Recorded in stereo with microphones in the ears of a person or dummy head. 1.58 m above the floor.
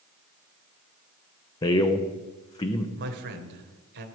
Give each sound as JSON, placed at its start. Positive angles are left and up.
{"t": 1.6, "sound": "a man speaking", "side_deg": 20, "distance_m": 0.8}
{"t": 3.0, "sound": "a man speaking", "side_deg": -60, "distance_m": 0.9}